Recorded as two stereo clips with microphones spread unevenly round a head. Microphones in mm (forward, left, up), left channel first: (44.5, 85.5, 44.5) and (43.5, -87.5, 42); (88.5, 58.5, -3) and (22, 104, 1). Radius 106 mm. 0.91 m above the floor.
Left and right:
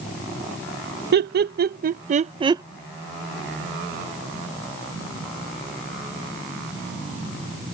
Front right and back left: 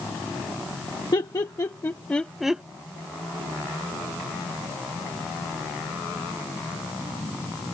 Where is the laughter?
85° right; by 2.6 s 145° right.